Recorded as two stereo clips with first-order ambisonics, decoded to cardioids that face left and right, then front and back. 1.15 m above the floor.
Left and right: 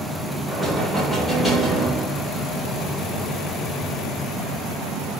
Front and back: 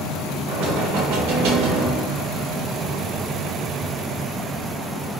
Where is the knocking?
165° left, 1.1 m.